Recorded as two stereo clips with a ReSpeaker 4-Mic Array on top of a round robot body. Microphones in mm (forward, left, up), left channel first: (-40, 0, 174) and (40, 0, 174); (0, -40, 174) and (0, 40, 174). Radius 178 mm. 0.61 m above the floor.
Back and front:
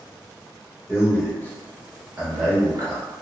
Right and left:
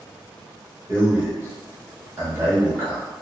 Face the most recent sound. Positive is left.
turn(degrees=15)